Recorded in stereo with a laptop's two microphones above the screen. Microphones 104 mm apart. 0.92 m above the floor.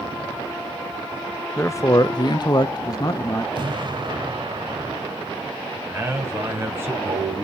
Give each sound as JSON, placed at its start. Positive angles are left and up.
{"t": 1.6, "sound": "a man speaking", "side_deg": 25, "distance_m": 0.5}
{"t": 3.5, "sound": "an explosion", "side_deg": -45, "distance_m": 1.7}
{"t": 5.9, "sound": "a man speaking", "side_deg": -20, "distance_m": 5.0}